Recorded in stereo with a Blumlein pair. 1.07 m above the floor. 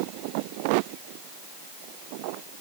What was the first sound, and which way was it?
Only background noise.